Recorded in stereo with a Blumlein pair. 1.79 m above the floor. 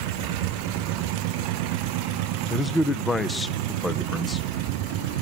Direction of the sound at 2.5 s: 10° left.